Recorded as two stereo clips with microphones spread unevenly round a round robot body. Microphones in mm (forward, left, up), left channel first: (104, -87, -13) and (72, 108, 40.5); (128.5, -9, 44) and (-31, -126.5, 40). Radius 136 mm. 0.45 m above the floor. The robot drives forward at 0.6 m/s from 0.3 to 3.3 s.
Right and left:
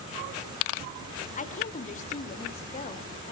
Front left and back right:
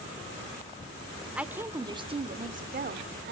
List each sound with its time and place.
1.4 s a woman speaking: 60° right, 1.1 m; by 3.3 s 130° right, 1.3 m